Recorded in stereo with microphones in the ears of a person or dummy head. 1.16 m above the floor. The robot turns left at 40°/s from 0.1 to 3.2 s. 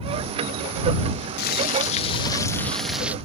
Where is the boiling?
55° left; by 3.1 s 15° right.